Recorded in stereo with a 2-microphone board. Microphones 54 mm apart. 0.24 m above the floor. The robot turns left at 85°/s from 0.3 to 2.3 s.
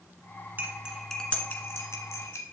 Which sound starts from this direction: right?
Cutlery clinking, at 0.6 s.